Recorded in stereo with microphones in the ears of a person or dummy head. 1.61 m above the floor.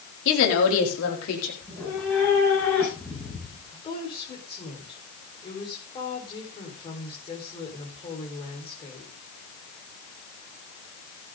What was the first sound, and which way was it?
A woman speaking, 70° left (ahead or behind).